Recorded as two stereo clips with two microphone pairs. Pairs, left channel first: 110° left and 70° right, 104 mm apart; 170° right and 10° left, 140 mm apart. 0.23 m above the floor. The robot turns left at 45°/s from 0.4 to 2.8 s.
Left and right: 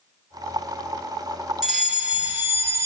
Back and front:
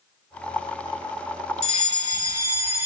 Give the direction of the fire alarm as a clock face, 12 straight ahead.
12 o'clock.